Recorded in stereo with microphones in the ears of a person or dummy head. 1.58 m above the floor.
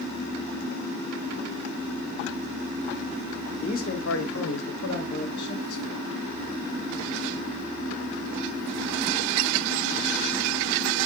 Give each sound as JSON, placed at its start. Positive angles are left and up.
{"t": 3.6, "sound": "a man speaking", "side_deg": 30, "distance_m": 0.6}